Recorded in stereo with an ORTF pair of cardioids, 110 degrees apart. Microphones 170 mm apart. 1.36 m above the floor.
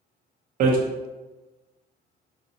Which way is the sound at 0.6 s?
60° right.